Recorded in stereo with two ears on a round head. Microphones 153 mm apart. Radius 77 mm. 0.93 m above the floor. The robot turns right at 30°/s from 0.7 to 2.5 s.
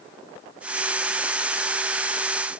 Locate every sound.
Only background noise.